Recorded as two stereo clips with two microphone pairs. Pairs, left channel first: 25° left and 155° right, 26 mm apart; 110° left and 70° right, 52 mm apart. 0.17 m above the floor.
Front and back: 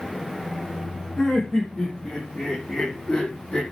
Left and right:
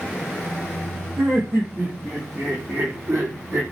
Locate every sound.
1.2 s laughter: 45° right, 7.5 m; by 3.6 s 40° right, 6 m